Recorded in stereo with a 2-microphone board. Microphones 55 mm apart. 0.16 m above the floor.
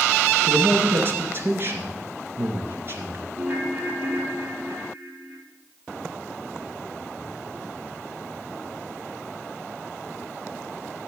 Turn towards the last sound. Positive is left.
turn(degrees=-40)  # may be behind; listen again after turning